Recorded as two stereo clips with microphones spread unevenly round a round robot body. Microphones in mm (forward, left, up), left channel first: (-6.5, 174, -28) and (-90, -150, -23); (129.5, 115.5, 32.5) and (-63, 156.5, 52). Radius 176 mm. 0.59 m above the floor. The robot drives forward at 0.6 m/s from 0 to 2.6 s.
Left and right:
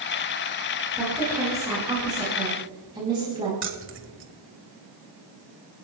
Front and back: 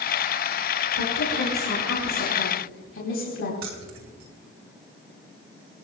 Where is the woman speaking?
20° right, 5 m; by 3.5 s 25° right, 4 m.